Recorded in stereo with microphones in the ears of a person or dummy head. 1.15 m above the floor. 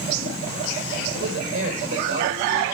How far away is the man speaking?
About 4 m.